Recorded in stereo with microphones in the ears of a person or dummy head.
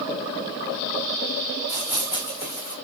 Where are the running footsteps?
10° right (ahead or behind), 5 m; by 2.8 s 5° right (ahead or behind), 4.5 m.